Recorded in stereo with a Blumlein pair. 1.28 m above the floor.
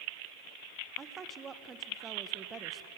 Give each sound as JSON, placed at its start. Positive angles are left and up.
{"t": 1.0, "sound": "a woman speaking", "azimuth_deg": -20, "distance_m": 1.1}